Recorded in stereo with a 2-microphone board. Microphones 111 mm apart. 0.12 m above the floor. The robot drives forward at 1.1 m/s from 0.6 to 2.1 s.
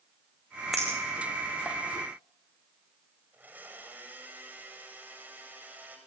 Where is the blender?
15° right (ahead or behind), 7 m.